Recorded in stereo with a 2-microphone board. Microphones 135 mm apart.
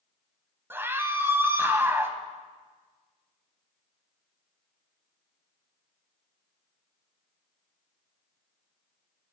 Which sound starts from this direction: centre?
A scream, at 0.7 s.